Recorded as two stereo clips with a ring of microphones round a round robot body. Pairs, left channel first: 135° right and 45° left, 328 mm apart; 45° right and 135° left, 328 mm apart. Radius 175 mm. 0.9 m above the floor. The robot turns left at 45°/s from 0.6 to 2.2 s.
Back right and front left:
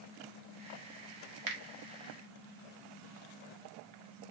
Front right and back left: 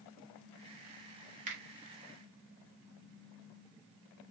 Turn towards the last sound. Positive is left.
turn(degrees=30)